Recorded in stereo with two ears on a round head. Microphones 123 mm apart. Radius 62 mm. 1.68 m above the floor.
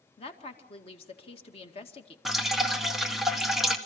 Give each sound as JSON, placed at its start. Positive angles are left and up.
{"t": 0.2, "sound": "a woman speaking", "side_deg": 45, "distance_m": 2.0}
{"t": 2.2, "sound": "dripping", "side_deg": 0, "distance_m": 1.5}